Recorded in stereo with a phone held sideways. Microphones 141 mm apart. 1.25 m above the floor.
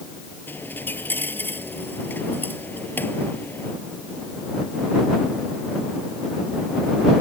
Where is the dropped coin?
15° left (ahead or behind).